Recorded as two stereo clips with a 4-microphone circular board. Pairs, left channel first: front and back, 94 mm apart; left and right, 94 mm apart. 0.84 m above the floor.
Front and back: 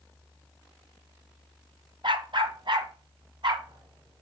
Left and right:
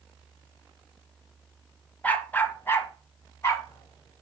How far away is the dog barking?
About 1.1 m.